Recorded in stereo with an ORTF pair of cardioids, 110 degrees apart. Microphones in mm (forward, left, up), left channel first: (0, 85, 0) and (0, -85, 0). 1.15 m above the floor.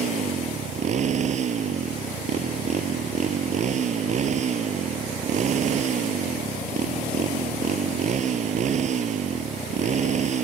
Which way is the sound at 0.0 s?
45° right.